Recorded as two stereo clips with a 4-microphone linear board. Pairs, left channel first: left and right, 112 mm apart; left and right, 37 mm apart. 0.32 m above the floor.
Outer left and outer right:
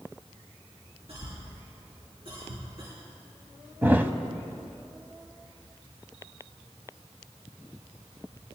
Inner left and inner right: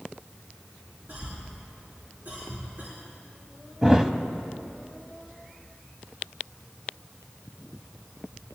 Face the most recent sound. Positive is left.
turn(degrees=-20)  # may be behind; listen again after turning